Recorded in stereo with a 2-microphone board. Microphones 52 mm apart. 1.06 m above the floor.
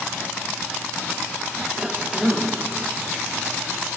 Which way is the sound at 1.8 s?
10° right (ahead or behind).